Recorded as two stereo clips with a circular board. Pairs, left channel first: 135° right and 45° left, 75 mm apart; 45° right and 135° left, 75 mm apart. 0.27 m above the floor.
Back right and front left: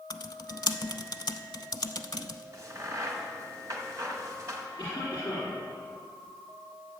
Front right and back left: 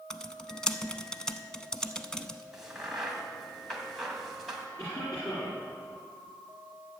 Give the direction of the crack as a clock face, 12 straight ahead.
10 o'clock.